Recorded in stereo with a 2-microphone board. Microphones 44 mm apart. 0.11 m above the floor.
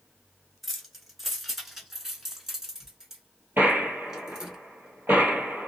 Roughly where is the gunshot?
Right.